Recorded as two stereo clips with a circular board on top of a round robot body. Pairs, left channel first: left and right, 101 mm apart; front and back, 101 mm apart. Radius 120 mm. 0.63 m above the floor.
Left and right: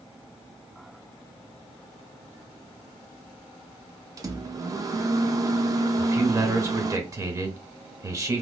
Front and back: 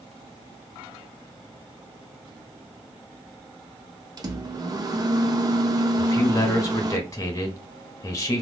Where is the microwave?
140° right, 0.7 m.